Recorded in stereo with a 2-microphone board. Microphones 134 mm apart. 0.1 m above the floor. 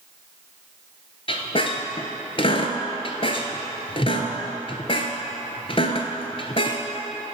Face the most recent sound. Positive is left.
turn(degrees=45)  # may be behind; listen again after turning